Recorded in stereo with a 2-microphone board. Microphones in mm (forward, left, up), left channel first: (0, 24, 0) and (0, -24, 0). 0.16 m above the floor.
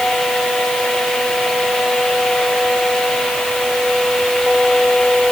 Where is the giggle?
I don't hear a giggle.